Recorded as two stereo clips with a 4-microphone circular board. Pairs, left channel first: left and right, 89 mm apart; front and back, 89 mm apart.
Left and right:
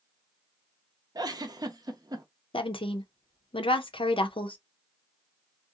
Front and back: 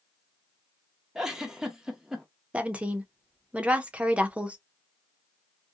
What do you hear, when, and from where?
1.1 s a giggle: 100° right, 0.6 m
2.5 s a woman speaking: 105° left, 0.5 m